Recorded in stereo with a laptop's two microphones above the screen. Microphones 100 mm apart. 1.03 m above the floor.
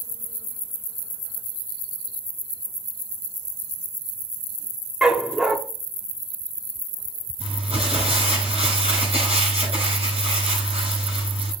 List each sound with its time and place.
5.0 s a dog barking: 5° right (ahead or behind), 0.8 m
7.4 s crumpling: 85° right, 7 m